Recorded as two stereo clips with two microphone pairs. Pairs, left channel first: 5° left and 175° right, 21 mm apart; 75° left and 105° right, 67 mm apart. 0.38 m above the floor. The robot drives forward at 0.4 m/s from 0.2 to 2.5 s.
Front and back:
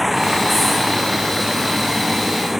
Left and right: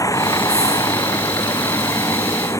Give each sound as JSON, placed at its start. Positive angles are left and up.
{"t": 0.0, "sound": "a vehicle", "azimuth_deg": 100}